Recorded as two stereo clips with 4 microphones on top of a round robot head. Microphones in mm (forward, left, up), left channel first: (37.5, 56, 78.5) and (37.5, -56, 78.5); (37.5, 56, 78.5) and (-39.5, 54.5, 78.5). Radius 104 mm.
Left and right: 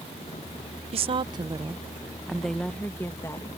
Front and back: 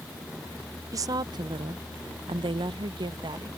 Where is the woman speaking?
125° right; by 3.5 s 160° left.